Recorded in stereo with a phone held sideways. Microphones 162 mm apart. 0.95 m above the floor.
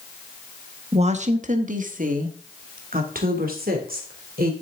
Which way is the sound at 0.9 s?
40° right (ahead or behind).